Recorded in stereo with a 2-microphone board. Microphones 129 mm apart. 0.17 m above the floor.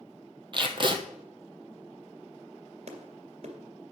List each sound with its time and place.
0.5 s tape being pulled: 40° right (ahead or behind), 1.1 m
2.9 s a clap: 55° right (ahead or behind), 2 m